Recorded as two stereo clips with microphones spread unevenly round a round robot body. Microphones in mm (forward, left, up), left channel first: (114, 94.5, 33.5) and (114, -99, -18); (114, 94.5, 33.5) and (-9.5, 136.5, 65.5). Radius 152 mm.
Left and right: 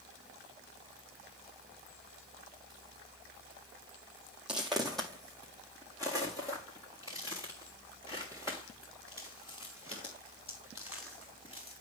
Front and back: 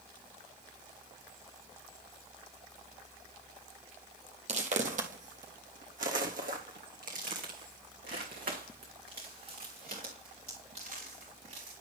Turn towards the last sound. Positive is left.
turn(degrees=160)